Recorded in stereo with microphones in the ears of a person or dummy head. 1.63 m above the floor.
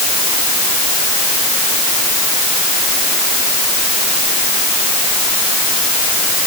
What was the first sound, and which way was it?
Only background noise.